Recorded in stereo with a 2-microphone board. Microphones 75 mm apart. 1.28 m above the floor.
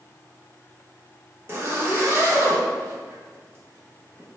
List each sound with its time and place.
1.5 s a zipper: 35° right (ahead or behind), 0.7 m